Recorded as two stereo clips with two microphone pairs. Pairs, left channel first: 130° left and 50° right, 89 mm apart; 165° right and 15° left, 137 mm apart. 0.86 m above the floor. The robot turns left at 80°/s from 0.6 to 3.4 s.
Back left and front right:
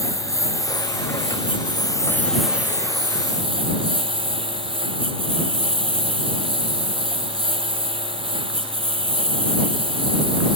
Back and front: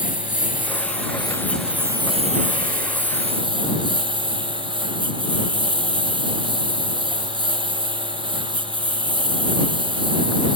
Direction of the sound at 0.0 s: 175° right.